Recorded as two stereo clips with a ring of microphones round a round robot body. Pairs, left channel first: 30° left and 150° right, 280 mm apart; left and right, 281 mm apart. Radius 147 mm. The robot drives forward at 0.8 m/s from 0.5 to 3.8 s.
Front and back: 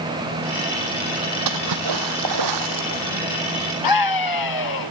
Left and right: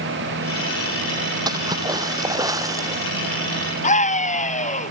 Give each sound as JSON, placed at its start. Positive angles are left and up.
{"t": 1.5, "sound": "a splash", "azimuth_deg": -165}
{"t": 3.8, "sound": "a scream", "azimuth_deg": 25}